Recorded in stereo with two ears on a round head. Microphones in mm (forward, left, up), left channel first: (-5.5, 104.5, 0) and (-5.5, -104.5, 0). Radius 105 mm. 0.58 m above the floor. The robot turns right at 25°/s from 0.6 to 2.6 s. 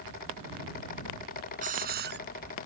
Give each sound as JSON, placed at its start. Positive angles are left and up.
{"t": 1.6, "sound": "a hiss", "side_deg": -35}